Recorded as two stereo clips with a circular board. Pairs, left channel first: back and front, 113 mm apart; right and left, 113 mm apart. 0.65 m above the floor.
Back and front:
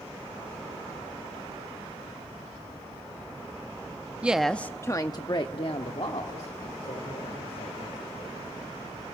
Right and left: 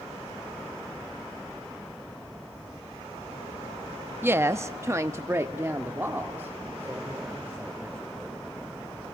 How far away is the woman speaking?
About 0.5 m.